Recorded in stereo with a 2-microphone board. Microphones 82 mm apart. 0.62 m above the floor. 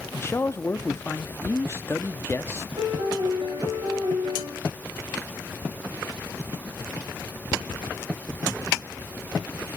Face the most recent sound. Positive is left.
turn(degrees=-80)